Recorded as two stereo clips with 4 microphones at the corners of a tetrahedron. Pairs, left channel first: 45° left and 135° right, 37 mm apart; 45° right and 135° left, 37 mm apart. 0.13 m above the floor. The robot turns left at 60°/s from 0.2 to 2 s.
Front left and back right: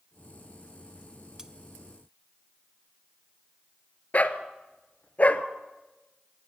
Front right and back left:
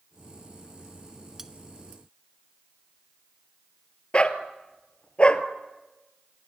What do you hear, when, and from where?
1.4 s cutlery clinking: 170° right, 0.6 m; by 1.5 s straight behind, 0.6 m
4.1 s a dog barking: 5° left, 1.0 m